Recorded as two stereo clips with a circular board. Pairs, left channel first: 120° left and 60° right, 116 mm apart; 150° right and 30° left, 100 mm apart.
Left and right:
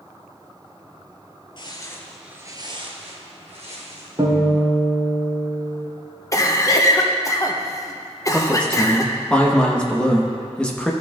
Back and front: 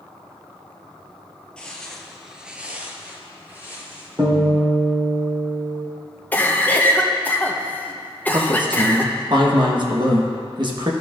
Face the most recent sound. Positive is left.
turn(degrees=40)